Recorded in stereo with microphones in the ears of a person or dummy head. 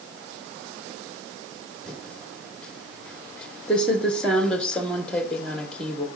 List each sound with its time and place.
1.9 s typing on a keyboard: 5° left (ahead or behind), 1.3 m